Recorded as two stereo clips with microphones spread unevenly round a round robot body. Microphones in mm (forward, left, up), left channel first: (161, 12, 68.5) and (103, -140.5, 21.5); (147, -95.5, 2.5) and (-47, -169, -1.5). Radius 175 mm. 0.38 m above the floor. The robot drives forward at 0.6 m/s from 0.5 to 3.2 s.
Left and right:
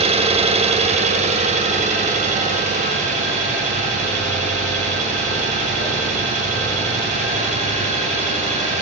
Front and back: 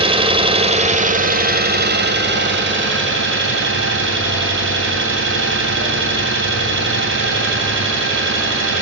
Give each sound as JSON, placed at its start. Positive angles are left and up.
{"t": 0.0, "sound": "an engine running", "azimuth_deg": -105, "distance_m": 1.5}